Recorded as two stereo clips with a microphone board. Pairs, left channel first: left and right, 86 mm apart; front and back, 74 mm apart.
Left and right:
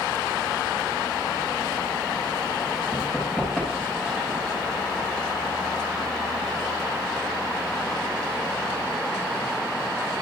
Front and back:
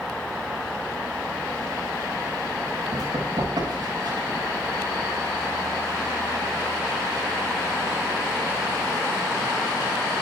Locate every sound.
2.9 s running footsteps: 170° right, 10 m